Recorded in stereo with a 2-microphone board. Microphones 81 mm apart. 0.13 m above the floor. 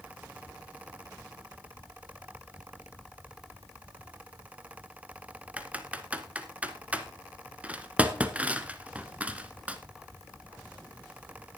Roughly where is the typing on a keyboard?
Centre.